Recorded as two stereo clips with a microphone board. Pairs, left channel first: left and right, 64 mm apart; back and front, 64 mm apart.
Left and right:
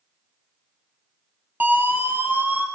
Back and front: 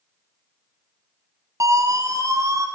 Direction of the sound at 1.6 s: 30° right.